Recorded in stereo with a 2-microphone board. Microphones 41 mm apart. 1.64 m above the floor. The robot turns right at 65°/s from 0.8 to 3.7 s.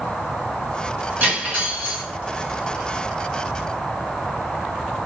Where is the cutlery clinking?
120° right, 1.4 m; by 2.0 s 65° right, 1.4 m.